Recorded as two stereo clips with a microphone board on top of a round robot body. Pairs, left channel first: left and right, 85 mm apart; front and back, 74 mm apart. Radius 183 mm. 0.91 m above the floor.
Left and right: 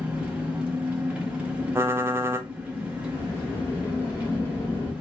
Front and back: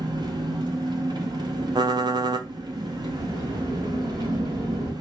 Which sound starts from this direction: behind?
An engine running, at 0.0 s.